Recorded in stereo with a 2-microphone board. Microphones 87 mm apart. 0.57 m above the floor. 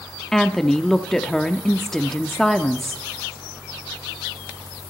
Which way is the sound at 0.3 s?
5° left (ahead or behind).